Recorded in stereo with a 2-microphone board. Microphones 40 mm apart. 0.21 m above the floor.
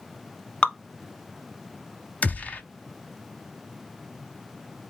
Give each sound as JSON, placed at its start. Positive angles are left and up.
{"t": 0.6, "sound": "dripping", "side_deg": 25, "distance_m": 0.8}
{"t": 2.2, "sound": "a gunshot", "side_deg": 40, "distance_m": 0.7}